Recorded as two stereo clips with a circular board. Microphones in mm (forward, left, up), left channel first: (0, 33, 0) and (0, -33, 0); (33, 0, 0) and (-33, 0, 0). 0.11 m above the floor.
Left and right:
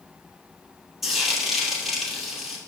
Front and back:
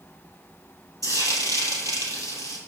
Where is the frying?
175° right, 2.5 m.